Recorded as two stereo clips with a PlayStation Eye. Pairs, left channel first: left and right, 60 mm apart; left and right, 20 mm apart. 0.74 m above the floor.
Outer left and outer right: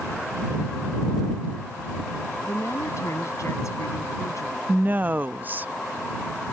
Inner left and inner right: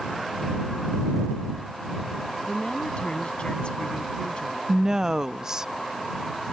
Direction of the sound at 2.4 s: 60° left (ahead or behind).